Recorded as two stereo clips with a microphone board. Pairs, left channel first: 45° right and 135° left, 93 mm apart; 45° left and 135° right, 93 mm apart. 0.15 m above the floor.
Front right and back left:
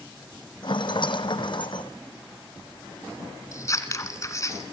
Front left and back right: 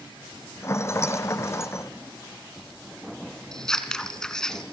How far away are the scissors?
About 2.0 m.